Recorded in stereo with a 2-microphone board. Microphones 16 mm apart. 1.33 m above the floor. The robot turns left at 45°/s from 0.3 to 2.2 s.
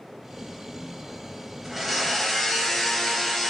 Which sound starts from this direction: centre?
A blender, at 1.6 s.